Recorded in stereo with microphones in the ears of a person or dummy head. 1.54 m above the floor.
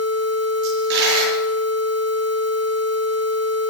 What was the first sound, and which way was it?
A dropped coin, 70° right (ahead or behind).